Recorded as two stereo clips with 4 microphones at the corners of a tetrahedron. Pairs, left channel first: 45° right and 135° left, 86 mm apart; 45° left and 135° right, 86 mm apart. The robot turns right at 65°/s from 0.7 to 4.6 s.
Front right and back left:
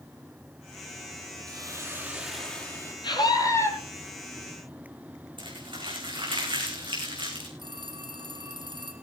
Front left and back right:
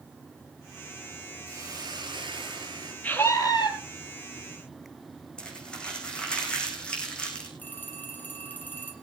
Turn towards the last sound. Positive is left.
turn(degrees=115)